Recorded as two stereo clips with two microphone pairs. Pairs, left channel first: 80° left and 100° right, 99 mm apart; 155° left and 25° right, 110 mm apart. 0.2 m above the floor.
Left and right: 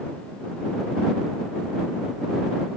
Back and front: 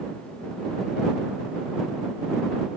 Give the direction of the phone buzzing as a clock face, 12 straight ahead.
No phone buzzing in this recording.